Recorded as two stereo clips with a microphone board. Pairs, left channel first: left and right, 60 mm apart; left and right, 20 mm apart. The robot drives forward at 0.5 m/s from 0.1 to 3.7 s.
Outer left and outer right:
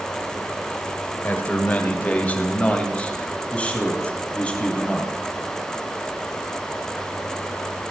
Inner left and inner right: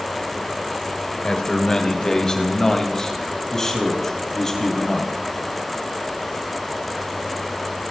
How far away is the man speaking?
About 2.5 m.